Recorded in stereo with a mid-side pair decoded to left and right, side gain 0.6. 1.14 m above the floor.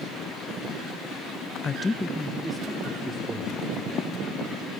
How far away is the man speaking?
About 0.7 m.